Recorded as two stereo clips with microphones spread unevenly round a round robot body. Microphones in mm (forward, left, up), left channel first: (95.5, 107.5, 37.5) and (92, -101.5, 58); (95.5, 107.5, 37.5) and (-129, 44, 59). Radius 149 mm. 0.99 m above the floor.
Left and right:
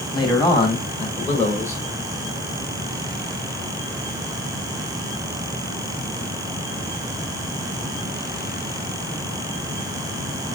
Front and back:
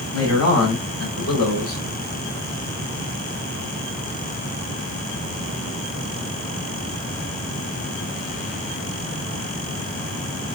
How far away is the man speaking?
About 3 m.